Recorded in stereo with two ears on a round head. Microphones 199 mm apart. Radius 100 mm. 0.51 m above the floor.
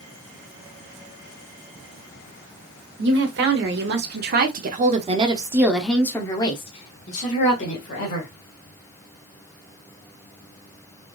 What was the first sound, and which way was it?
A woman speaking, 55° right (ahead or behind).